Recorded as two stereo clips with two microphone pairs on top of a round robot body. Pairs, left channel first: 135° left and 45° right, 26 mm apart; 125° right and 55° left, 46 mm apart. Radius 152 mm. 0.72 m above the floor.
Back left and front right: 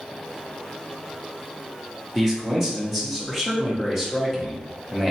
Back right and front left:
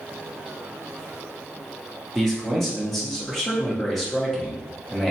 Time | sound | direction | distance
2.1 | a man speaking | 30° right | 1.0 m